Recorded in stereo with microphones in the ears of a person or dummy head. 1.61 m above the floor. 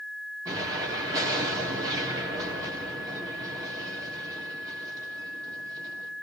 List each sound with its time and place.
0.5 s an explosion: 15° right (ahead or behind), 3.5 m